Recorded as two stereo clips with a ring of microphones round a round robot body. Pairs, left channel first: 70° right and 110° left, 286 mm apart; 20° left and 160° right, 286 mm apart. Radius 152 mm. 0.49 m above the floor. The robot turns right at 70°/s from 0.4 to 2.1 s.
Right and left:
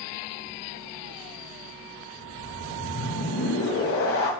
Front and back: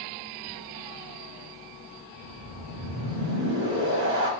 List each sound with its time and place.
2.2 s a whoosh: 110° right, 3 m